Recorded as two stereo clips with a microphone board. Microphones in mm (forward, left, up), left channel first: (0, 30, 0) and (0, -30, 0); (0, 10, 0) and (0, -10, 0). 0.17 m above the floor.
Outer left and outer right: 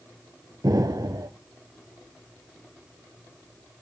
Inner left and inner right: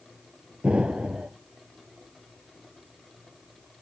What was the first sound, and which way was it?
An explosion, 75° right (ahead or behind).